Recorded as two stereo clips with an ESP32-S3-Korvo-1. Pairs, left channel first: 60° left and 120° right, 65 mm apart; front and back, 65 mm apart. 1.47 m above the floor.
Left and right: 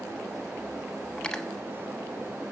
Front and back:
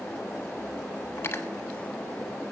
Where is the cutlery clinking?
10° right, 1.0 m.